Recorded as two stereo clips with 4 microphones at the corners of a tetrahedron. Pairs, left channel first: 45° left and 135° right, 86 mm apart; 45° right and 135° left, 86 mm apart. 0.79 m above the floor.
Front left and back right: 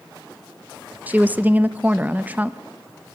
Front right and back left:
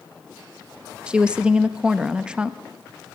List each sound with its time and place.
1.1 s a woman speaking: 170° right, 0.6 m